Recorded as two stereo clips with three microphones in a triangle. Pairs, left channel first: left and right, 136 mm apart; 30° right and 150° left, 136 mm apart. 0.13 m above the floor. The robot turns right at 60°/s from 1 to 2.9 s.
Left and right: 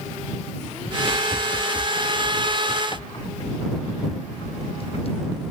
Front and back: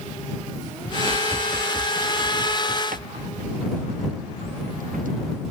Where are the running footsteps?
40° left; by 5.1 s 135° left.